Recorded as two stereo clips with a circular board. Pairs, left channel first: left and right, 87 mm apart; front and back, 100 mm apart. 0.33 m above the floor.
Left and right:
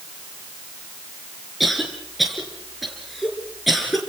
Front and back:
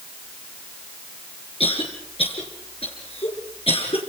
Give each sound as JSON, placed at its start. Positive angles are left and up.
{"t": 1.6, "sound": "a cough", "azimuth_deg": 0, "distance_m": 4.0}